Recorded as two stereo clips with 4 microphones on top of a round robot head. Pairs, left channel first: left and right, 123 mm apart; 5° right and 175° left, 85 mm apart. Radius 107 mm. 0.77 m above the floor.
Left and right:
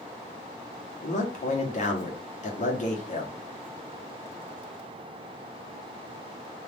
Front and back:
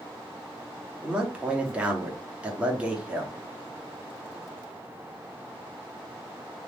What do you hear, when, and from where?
1.0 s a man speaking: 100° left, 1.5 m